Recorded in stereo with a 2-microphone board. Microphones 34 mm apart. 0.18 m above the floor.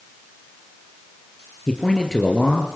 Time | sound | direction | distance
1.7 | a man speaking | 15° left (ahead or behind) | 3 m